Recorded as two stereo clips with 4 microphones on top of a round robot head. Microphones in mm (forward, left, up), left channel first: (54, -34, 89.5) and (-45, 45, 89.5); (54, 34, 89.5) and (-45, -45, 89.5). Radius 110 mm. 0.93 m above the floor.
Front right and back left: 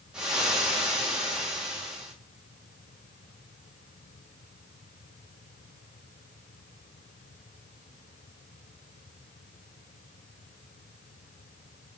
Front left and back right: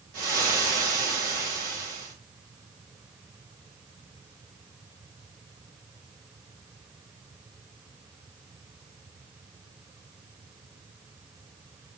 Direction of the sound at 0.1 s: 135° right.